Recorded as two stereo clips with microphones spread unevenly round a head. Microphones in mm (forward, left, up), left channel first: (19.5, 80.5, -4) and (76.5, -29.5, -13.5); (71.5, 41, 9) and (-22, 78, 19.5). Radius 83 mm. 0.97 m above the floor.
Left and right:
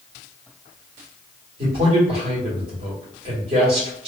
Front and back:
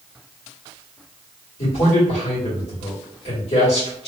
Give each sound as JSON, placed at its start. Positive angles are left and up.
{"t": 1.6, "sound": "a man speaking", "azimuth_deg": -35, "distance_m": 2.0}